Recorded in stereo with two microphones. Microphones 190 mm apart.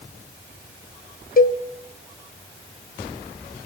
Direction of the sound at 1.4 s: 45° left (ahead or behind).